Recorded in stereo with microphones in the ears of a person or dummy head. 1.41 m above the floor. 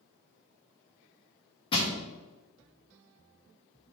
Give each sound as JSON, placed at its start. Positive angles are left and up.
{"t": 1.7, "sound": "crushing", "side_deg": 25, "distance_m": 1.1}